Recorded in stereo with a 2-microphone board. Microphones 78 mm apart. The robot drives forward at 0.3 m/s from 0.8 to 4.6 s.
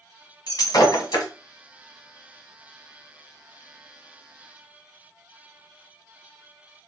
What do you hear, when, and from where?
0.5 s breaking glass: 65° left (ahead or behind), 1.2 m